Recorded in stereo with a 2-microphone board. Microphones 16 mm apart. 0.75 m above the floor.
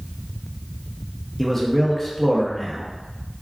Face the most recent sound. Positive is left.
turn(degrees=20)  # may be behind; listen again after turning